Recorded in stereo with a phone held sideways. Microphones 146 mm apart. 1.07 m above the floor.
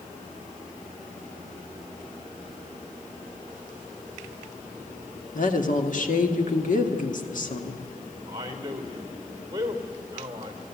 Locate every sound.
5.3 s a woman speaking: 65° left (ahead or behind), 1.7 m
8.3 s a man speaking: 25° right (ahead or behind), 3.5 m